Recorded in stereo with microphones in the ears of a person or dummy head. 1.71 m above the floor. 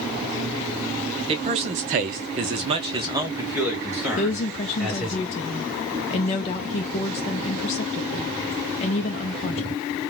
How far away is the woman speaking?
About 0.5 m.